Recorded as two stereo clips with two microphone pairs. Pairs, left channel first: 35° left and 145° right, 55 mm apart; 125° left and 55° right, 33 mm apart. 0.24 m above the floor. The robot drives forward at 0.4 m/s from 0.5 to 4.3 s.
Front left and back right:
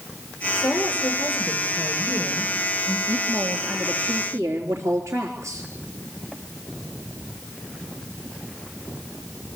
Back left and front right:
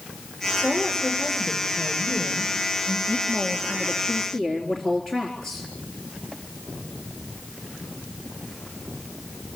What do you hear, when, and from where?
0.6 s a woman speaking: 65° left, 4.5 m; by 3.0 s 80° left, 4.5 m
3.1 s a woman speaking: 175° right, 3.5 m